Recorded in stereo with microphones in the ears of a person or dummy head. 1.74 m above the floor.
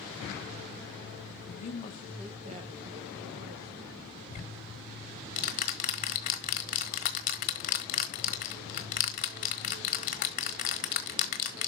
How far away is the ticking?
About 1.3 m.